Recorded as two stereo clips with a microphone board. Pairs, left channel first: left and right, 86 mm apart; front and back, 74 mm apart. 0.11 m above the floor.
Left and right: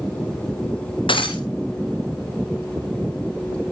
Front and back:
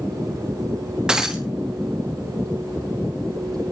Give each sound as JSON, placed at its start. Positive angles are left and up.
{"t": 1.1, "sound": "breaking glass", "azimuth_deg": 100, "distance_m": 2.5}